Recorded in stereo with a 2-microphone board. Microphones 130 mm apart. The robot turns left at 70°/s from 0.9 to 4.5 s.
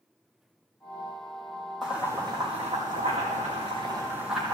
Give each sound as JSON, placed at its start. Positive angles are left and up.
{"t": 1.8, "sound": "boiling", "side_deg": 0, "distance_m": 3.5}